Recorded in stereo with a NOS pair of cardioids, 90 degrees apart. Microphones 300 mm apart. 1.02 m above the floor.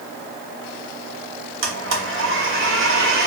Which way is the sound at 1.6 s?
45° right.